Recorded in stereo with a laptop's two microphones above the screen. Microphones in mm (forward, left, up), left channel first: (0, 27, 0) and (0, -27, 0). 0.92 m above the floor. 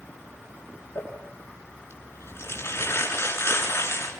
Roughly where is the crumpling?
Left.